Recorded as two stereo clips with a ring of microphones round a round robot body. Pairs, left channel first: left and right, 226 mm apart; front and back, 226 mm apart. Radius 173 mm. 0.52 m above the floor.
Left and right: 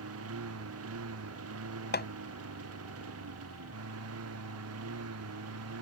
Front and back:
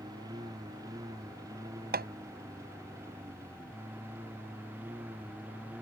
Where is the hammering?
135° left.